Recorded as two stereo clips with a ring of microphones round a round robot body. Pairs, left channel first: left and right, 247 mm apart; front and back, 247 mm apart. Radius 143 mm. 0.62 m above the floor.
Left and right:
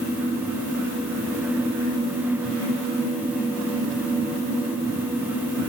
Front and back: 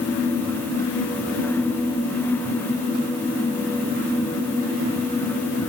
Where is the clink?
I don't hear a clink.